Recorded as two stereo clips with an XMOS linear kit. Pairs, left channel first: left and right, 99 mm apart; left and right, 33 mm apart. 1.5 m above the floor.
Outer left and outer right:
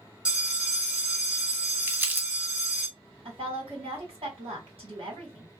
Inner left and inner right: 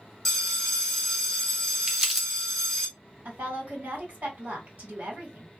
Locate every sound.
0.2 s a bell: 10° right (ahead or behind), 1.4 m
1.9 s crumpling: 20° right (ahead or behind), 0.7 m
3.2 s a woman speaking: 70° right (ahead or behind), 2 m